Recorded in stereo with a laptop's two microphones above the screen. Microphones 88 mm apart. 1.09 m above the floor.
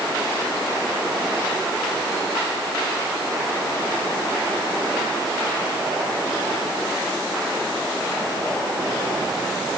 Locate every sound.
Only background noise.